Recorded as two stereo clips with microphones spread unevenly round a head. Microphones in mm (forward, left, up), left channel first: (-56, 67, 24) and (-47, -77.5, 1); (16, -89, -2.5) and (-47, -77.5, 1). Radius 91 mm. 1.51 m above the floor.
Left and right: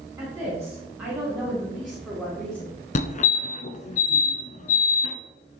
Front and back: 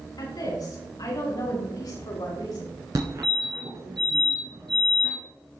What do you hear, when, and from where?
0.2 s a woman speaking: 10° right, 5 m; by 2.7 s 10° left, 4.5 m
3.0 s a fire alarm: 125° left, 1.3 m